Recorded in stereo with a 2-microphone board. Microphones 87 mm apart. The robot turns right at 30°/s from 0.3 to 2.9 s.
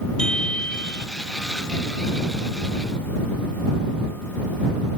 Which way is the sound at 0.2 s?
10° left (ahead or behind).